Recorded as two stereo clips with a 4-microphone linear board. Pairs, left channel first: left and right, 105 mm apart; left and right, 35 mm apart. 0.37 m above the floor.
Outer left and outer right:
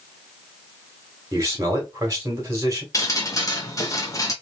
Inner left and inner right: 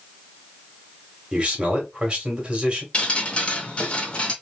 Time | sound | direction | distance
1.3 | a man speaking | 30° right (ahead or behind) | 1.6 m
2.9 | dripping | 35° left (ahead or behind) | 0.8 m